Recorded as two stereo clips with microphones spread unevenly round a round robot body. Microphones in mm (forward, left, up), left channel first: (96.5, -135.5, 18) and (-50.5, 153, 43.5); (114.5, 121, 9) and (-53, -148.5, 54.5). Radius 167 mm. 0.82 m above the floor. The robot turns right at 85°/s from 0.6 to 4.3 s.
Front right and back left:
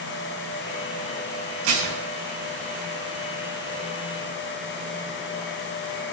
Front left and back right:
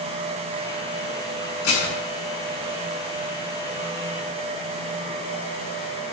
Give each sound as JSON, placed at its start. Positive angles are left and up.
{"t": 1.6, "sound": "dishes clattering", "azimuth_deg": 105, "distance_m": 5.5}